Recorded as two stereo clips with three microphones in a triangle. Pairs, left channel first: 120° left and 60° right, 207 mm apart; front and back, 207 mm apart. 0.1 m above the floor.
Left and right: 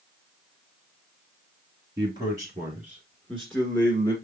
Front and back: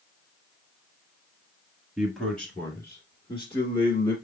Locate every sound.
2.0 s a man speaking: 95° right, 1.7 m; by 4.2 s 45° left, 2 m